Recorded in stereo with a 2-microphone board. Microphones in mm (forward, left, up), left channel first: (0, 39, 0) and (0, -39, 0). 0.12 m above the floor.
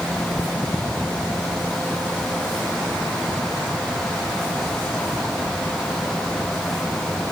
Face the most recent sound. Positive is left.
No sound to turn to.